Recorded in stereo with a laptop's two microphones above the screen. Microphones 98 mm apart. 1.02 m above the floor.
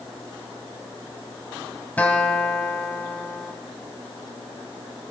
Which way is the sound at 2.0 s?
15° left (ahead or behind).